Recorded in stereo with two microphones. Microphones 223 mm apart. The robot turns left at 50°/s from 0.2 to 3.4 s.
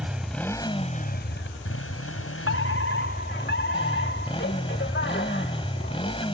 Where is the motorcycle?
175° right; by 6.3 s 25° left.